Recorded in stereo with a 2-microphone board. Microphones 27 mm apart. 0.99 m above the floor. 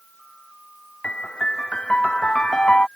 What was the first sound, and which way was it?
A piano, 35° left (ahead or behind).